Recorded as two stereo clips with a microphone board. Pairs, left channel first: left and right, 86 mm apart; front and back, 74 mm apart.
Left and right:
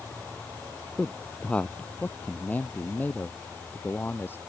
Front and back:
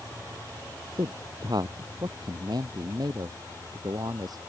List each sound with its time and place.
1.0 s a man speaking: 165° left; by 4.4 s 155° left